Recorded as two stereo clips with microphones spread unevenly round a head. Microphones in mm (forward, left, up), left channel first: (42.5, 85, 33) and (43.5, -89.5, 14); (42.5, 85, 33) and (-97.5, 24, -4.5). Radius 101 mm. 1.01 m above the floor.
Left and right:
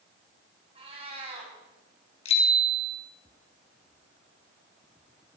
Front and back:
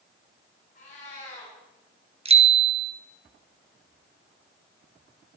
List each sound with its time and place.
0.8 s a cat meowing: 30° right, 4.5 m
2.2 s a bicycle bell: 155° left, 2 m